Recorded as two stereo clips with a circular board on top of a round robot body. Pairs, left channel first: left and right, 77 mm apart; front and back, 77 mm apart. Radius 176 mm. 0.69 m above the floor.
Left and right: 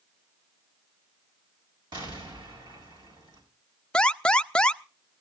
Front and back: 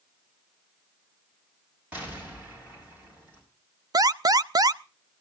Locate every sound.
1.9 s an explosion: 105° right, 6.5 m
3.9 s an alarm: 165° left, 0.7 m